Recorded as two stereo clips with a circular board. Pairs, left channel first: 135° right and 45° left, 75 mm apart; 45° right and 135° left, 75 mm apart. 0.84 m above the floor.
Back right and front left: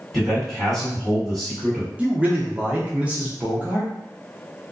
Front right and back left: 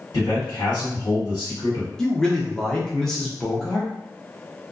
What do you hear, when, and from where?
0.1 s a man speaking: 40° right, 1.6 m
2.0 s a man speaking: 20° left, 0.5 m